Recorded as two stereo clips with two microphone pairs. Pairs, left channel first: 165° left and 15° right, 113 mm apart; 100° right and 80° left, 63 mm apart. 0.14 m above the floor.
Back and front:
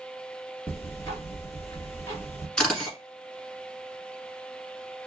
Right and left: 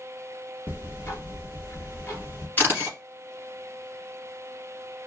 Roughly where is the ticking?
Behind right.